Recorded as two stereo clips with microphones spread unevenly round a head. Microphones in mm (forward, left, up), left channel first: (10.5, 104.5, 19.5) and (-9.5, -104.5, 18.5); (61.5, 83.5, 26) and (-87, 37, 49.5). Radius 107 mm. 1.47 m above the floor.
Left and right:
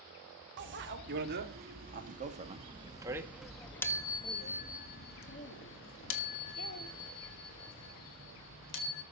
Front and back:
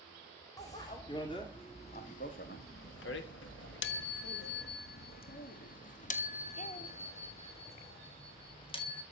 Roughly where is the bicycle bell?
Ahead right.